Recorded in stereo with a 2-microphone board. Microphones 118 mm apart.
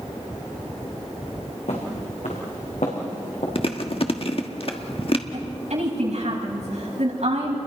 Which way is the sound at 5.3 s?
70° right (ahead or behind).